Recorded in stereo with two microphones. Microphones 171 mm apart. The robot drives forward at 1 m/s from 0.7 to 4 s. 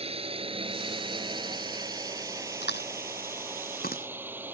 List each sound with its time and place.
0.0 s a drone: 35° right (ahead or behind); by 4.5 s 10° right (ahead or behind)
2.6 s chewing: 75° left (ahead or behind); by 4.5 s 55° left (ahead or behind)